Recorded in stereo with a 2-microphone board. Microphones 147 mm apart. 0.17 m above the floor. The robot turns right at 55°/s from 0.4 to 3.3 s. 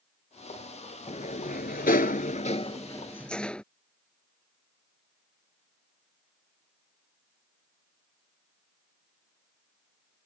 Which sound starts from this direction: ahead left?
A sliding door, at 1.1 s.